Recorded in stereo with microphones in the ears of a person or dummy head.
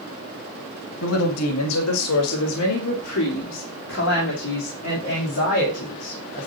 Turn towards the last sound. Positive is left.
turn(degrees=40)  # may be behind; listen again after turning